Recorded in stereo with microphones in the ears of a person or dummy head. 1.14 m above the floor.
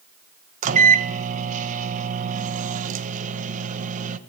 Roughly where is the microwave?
Right.